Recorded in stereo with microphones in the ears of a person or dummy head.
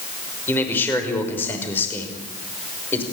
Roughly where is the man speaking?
Centre.